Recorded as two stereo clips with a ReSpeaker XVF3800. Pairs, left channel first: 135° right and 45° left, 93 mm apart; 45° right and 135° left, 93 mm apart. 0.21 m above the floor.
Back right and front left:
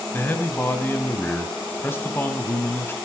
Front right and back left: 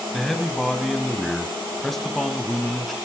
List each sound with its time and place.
0.1 s a man speaking: 130° right, 1.0 m